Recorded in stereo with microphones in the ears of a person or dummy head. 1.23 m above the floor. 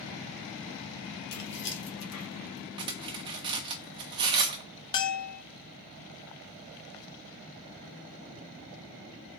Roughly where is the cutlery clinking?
Right.